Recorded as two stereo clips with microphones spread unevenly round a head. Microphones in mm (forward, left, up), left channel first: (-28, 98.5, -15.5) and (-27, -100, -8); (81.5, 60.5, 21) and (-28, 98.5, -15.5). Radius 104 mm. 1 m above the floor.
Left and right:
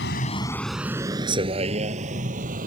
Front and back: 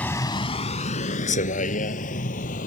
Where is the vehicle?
55° left; by 2.7 s 35° right.